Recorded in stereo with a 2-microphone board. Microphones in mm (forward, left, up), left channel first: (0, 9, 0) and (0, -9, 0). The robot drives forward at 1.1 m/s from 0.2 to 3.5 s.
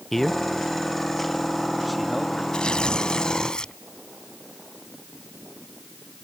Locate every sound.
0.1 s a man speaking: 10° left (ahead or behind); by 2.4 s 5° left (ahead or behind)
2.5 s tearing paper: 45° left (ahead or behind); by 3.7 s 40° left (ahead or behind)